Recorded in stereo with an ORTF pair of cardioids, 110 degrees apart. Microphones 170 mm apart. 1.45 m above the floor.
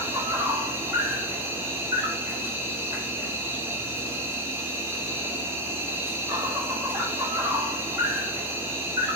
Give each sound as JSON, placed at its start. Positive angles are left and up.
{"t": 0.0, "sound": "an insect", "azimuth_deg": -15, "distance_m": 1.1}